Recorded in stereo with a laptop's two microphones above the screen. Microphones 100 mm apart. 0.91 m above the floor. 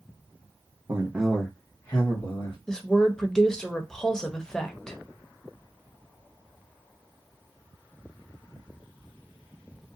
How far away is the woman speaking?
About 0.7 m.